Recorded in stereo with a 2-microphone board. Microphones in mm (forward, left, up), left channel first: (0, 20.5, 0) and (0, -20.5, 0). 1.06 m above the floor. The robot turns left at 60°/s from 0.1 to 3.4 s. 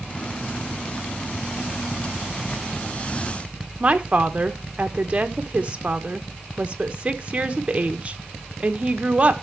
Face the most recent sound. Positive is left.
turn(degrees=-30)  # may be behind; listen again after turning